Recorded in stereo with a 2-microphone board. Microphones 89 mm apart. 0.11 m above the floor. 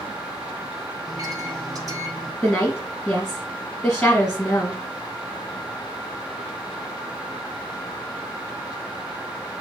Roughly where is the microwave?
Right.